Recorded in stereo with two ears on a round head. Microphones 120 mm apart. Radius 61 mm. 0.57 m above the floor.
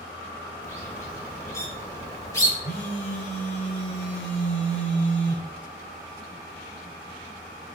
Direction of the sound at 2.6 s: 65° left (ahead or behind).